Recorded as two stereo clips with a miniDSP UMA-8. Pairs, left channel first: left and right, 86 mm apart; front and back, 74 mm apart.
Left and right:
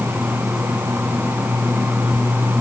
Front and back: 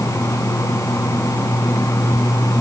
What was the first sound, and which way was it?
Only background noise.